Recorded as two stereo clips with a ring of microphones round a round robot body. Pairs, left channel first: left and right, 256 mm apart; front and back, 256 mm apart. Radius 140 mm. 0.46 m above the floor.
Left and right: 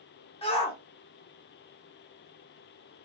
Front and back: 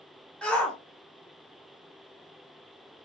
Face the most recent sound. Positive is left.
turn(degrees=80)